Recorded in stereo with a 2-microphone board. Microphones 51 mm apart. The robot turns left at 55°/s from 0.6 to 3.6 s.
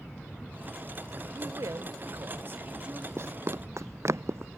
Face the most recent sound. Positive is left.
turn(degrees=-55)  # may be behind; listen again after turning